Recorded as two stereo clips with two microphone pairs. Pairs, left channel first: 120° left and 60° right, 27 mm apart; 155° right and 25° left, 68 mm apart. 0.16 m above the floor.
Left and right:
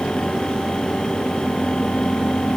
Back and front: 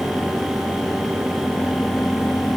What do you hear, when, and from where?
Only background noise.